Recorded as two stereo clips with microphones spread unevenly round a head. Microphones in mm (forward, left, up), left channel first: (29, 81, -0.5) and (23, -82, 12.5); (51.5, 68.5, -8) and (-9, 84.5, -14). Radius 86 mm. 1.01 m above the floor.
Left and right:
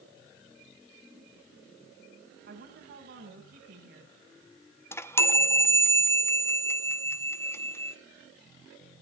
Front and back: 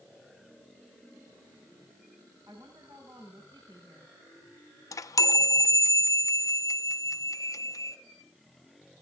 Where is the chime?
10° left, 0.8 m.